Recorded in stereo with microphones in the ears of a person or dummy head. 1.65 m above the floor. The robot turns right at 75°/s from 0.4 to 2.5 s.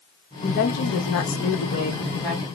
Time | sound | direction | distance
0.4 | a woman speaking | 30° left | 1.1 m